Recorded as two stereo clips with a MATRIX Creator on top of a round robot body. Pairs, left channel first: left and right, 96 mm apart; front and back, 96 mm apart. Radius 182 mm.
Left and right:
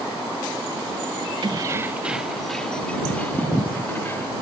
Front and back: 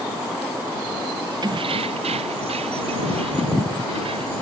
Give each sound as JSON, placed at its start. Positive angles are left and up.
{"t": 1.4, "sound": "keys jangling", "azimuth_deg": -135}